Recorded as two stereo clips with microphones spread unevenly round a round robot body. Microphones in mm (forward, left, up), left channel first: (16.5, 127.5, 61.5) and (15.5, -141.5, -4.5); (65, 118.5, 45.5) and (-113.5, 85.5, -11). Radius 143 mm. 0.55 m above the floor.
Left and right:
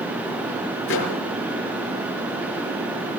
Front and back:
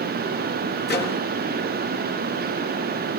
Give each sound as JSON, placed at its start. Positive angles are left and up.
{"t": 0.9, "sound": "a microwave", "azimuth_deg": 40, "distance_m": 6.5}